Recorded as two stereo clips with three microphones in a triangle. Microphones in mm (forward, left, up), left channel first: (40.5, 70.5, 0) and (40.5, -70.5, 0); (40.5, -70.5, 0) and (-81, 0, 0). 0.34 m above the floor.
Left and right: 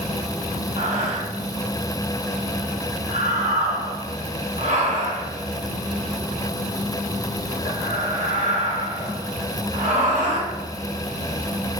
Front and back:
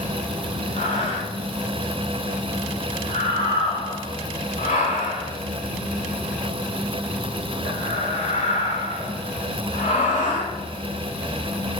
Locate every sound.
0.8 s breathing: 60° right, 0.8 m